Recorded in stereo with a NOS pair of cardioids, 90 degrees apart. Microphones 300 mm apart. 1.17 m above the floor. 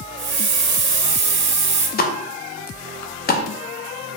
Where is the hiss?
35° right, 1.1 m.